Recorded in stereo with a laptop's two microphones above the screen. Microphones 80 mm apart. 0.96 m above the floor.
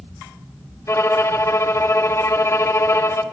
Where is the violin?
35° left (ahead or behind), 0.7 m.